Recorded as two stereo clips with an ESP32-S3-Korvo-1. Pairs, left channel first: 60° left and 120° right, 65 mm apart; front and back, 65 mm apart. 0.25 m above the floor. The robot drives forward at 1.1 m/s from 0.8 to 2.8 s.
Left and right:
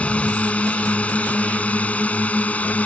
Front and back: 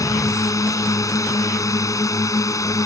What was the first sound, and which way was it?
A drone, 5° right.